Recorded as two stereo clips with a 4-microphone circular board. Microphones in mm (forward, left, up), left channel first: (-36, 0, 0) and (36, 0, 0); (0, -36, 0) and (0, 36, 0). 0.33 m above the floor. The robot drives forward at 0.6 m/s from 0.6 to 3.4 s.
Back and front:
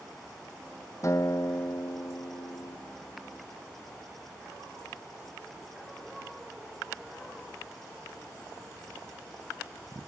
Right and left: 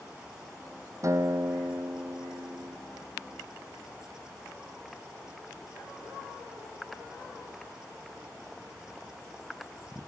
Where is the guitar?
135° left; by 2.8 s 145° left.